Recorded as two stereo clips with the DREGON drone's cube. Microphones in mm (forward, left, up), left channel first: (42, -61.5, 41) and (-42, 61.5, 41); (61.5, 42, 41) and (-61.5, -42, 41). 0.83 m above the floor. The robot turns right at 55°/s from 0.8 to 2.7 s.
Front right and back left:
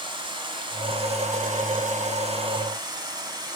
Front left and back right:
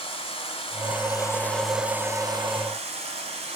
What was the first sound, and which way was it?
Running water, 75° left.